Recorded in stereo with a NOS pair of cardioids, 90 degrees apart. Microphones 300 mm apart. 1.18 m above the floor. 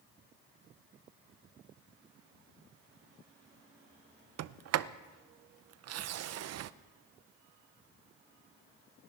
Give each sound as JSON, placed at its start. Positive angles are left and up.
{"t": 4.4, "sound": "a sliding door", "azimuth_deg": -55, "distance_m": 0.6}